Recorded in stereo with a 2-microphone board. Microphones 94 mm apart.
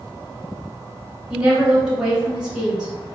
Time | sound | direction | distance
1.3 | a woman speaking | 10° right (ahead or behind) | 1.5 m